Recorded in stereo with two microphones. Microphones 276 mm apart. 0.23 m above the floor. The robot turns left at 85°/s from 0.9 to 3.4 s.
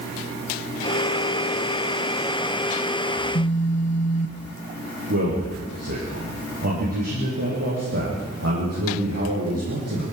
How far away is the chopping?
No chopping in this recording.